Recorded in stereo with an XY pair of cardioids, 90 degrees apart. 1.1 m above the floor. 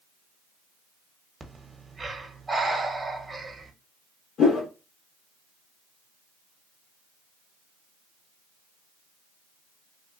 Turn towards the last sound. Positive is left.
turn(degrees=70)